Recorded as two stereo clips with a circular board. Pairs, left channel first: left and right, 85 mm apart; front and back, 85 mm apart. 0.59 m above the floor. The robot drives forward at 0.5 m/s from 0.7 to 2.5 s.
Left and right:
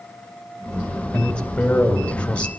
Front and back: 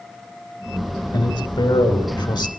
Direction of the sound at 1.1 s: 15° left.